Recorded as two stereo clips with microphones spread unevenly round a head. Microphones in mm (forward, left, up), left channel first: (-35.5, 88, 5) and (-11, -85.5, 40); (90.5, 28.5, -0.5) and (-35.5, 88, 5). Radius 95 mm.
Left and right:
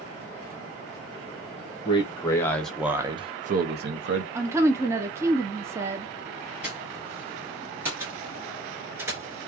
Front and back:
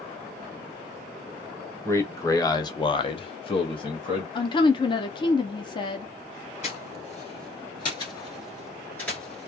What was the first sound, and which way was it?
A man speaking, 45° left.